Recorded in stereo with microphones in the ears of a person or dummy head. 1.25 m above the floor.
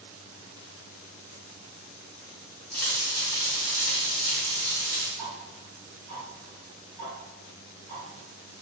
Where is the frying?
10° left (ahead or behind), 1.0 m.